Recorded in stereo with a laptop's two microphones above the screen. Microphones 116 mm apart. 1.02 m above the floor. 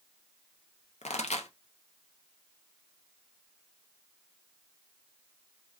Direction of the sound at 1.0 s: 80° left.